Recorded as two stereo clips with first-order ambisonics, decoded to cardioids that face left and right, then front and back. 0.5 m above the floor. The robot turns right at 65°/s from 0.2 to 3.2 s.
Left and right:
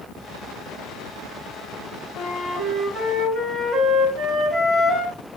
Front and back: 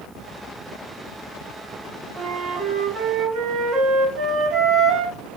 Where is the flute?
130° left, 2 m; by 5.2 s 160° right, 2 m.